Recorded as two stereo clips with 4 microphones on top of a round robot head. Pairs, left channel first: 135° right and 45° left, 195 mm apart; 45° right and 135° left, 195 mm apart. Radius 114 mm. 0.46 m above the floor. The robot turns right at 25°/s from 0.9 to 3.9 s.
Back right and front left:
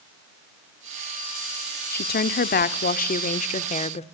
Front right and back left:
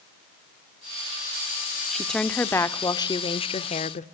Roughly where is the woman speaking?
Behind right.